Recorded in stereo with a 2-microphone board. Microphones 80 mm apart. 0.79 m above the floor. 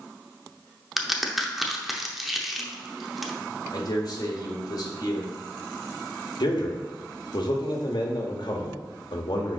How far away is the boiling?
I don't hear boiling.